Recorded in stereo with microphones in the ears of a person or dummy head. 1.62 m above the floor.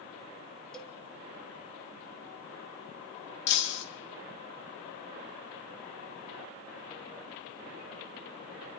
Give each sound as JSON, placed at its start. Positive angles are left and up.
{"t": 0.7, "sound": "a cowbell", "side_deg": 0, "distance_m": 3.5}
{"t": 3.5, "sound": "breaking glass", "side_deg": 65, "distance_m": 4.0}